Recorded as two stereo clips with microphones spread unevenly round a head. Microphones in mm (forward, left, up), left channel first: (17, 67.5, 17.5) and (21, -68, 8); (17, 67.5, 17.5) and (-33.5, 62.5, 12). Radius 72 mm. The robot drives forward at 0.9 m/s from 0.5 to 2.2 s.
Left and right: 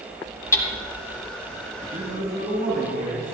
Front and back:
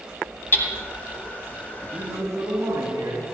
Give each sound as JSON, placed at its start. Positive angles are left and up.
{"t": 0.5, "sound": "hammering", "azimuth_deg": 25, "distance_m": 1.7}
{"t": 1.9, "sound": "a man speaking", "azimuth_deg": -120, "distance_m": 4.0}